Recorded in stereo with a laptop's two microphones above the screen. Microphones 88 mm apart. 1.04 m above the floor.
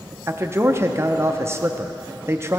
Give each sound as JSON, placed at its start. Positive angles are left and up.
{"t": 0.3, "sound": "a man speaking", "side_deg": -30, "distance_m": 0.6}